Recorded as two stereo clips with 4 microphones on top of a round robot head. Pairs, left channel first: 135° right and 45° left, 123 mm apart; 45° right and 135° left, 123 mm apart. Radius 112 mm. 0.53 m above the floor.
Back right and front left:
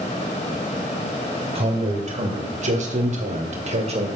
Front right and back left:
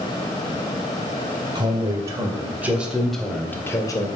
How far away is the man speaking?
About 3.5 m.